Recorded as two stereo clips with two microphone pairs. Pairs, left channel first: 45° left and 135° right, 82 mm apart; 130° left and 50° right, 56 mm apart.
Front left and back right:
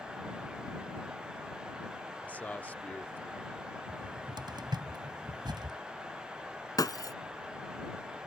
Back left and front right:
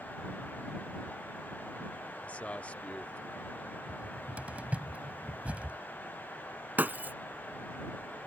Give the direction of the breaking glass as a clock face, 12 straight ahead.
12 o'clock.